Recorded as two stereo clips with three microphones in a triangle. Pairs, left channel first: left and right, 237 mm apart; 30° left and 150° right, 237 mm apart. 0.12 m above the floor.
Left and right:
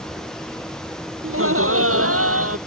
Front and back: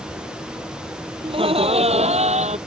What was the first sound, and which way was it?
Laughter, 85° right.